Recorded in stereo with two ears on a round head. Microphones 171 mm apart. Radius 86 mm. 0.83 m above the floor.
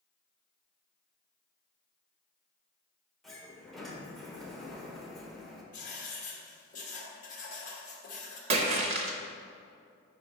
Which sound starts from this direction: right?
A splash, at 8.5 s.